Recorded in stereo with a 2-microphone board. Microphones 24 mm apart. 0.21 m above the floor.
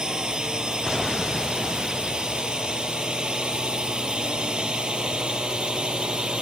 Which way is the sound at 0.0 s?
35° right (ahead or behind).